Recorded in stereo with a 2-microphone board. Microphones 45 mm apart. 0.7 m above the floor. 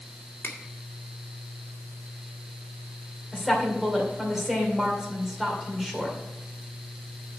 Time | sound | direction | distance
0.4 | a finger snap | 60° left (ahead or behind) | 1.8 m
3.3 | a woman speaking | 5° right (ahead or behind) | 2.5 m